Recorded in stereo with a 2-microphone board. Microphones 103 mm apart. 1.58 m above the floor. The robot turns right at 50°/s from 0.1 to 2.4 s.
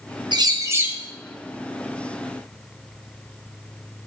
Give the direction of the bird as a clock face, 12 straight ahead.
2 o'clock.